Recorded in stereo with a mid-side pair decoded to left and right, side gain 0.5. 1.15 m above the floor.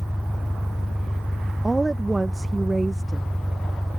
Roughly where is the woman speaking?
Ahead.